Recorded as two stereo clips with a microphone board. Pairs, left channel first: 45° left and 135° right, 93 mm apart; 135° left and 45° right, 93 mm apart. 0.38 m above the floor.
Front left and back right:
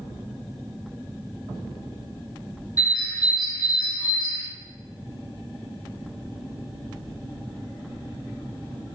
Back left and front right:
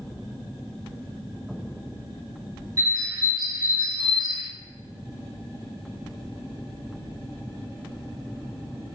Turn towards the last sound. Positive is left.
turn(degrees=0)